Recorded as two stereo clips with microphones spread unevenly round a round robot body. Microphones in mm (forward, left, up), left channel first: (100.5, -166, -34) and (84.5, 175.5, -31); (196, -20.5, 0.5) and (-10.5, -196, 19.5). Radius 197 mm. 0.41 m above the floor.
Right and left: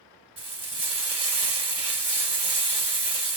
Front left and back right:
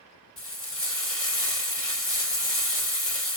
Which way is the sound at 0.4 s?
20° left.